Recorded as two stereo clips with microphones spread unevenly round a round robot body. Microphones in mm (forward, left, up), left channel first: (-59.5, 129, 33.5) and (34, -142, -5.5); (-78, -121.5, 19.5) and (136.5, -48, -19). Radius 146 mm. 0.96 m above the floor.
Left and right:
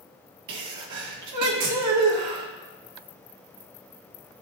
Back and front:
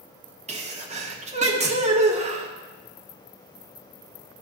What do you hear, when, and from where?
0.5 s a sneeze: 40° right, 1.6 m